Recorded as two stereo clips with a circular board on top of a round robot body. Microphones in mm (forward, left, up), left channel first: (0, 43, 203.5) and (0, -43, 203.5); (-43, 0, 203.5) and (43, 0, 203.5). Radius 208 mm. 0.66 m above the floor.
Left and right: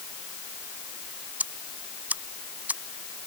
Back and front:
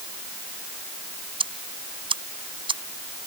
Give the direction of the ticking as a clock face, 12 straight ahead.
1 o'clock.